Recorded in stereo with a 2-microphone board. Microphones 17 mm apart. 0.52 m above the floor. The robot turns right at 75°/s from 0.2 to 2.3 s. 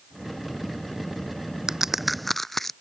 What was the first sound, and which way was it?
A crack, 35° right (ahead or behind).